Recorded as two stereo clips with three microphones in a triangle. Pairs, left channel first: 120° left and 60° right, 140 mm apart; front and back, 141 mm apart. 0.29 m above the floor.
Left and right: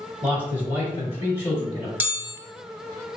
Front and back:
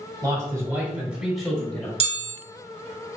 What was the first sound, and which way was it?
A man speaking, 135° right.